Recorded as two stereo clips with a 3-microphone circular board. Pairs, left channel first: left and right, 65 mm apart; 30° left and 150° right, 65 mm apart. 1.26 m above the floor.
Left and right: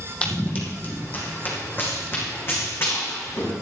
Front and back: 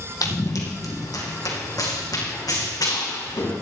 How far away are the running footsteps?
About 3 m.